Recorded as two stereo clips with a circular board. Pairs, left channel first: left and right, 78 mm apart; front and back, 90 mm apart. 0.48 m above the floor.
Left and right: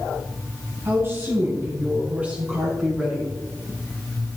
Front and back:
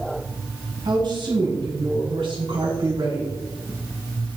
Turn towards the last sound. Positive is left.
turn(degrees=-170)